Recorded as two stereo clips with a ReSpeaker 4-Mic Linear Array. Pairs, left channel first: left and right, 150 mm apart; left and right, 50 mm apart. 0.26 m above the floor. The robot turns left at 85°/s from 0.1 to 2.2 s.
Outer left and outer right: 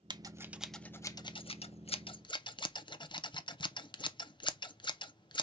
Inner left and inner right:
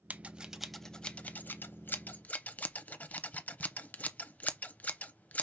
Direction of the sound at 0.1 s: 30° right (ahead or behind).